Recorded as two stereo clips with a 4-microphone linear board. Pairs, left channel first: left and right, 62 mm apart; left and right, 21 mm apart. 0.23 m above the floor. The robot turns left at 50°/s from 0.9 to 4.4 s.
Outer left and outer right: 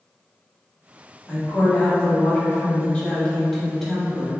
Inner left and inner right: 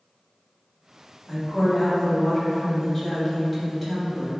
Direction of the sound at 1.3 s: 15° left (ahead or behind).